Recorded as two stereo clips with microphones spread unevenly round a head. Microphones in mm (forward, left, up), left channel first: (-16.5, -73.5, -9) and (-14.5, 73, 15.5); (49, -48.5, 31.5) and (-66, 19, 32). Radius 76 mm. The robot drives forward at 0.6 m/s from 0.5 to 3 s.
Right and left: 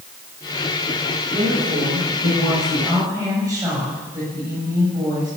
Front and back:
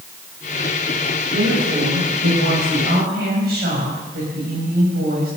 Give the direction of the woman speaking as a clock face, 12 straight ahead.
7 o'clock.